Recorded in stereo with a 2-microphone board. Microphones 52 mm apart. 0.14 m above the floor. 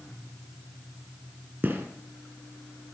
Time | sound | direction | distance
1.6 | a gunshot | 35° right (ahead or behind) | 3.5 m